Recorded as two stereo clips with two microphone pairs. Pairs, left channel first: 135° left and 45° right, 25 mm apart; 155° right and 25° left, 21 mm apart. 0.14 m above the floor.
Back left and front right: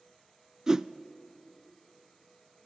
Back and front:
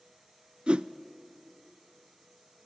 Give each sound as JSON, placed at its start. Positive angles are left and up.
{"t": 0.7, "sound": "a whoosh", "azimuth_deg": 10, "distance_m": 0.5}